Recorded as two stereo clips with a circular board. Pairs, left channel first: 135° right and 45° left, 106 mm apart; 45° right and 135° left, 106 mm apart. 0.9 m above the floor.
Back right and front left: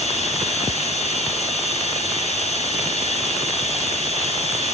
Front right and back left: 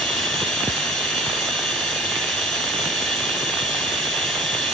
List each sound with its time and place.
0.0 s running water: 130° right, 3.5 m